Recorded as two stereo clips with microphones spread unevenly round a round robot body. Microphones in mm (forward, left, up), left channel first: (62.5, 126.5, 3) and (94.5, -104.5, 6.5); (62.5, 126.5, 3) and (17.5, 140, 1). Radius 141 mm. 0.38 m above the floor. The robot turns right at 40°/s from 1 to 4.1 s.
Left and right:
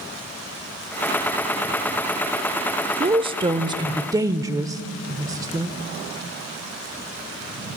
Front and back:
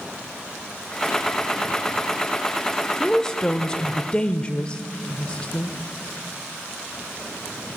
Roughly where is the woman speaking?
Right.